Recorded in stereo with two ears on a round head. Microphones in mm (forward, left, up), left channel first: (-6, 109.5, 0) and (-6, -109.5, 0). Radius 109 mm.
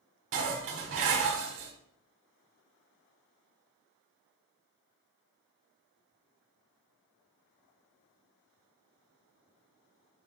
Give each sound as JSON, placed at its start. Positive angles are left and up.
{"t": 0.3, "sound": "dishes clattering", "side_deg": -55, "distance_m": 1.5}